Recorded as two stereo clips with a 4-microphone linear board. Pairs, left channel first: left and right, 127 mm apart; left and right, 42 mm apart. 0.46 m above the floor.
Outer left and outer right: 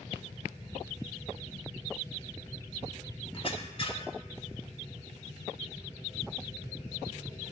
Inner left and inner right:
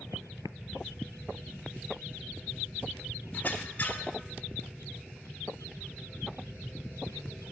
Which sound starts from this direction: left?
A squeak, at 3.3 s.